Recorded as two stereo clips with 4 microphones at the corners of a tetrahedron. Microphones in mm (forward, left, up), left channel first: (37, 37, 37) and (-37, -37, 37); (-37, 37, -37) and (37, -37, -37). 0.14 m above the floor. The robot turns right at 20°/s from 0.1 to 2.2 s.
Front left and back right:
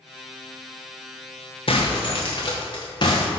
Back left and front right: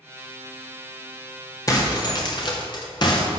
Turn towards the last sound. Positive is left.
turn(degrees=90)